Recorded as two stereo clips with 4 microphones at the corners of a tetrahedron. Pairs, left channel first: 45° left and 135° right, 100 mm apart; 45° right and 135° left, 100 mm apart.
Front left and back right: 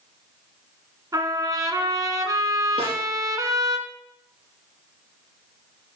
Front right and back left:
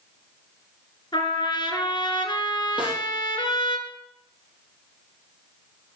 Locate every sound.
1.1 s a trumpet: 85° right, 1.5 m
2.8 s a snare drum: 145° right, 4.5 m